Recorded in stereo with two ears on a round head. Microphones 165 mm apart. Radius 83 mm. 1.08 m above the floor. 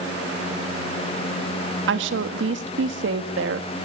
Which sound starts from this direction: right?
A woman speaking, at 1.9 s.